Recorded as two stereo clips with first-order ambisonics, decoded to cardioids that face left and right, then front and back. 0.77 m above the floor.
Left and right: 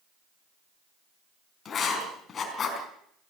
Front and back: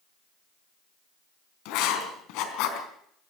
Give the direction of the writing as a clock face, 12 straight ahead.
11 o'clock.